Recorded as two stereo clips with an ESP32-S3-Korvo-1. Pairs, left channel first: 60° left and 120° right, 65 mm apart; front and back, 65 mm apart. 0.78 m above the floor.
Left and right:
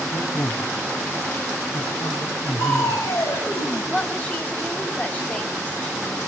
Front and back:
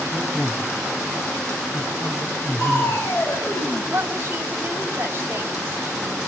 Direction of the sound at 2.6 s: 50° left.